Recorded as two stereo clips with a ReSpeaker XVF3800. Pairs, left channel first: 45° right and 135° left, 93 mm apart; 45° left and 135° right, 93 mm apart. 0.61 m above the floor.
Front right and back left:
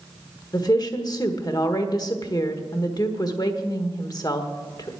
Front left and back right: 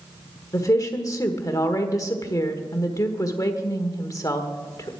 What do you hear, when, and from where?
0.5 s a woman speaking: 5° right, 1.4 m